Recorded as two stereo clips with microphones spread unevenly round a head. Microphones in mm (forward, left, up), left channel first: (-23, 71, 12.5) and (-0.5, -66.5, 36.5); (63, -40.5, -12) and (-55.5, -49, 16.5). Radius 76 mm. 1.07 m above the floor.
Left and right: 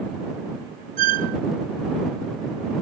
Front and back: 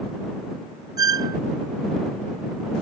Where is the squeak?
115° right.